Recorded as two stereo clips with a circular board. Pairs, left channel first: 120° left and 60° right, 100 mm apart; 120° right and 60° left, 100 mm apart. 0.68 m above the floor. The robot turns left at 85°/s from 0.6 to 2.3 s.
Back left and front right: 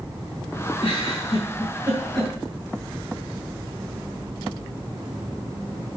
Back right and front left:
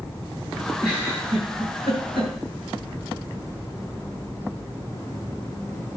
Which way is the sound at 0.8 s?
150° left.